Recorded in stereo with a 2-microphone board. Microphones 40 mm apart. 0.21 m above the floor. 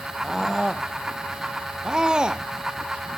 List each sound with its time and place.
0.2 s a scream: 10° right (ahead or behind); by 2.4 s 20° right (ahead or behind)